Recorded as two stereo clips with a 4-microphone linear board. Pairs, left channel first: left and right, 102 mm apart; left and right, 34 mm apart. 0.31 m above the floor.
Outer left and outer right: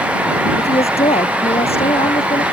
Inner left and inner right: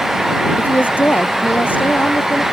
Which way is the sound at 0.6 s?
75° left (ahead or behind).